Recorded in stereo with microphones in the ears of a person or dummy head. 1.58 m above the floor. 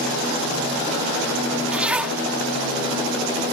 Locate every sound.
1.7 s a zipper: 5° right (ahead or behind)